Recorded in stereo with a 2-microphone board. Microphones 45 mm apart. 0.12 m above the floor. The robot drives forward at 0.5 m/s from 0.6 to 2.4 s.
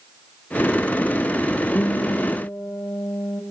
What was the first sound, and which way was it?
A guitar, 50° left (ahead or behind).